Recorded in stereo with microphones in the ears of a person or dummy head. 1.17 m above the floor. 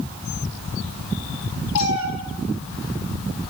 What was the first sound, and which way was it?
A cat meowing, 85° left.